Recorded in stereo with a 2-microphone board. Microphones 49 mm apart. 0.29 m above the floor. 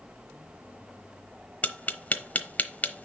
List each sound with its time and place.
1.6 s tapping: 35° left (ahead or behind), 0.9 m